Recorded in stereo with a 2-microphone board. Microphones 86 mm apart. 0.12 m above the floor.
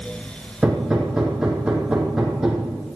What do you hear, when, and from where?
0.6 s hammering: 10° right (ahead or behind), 3 m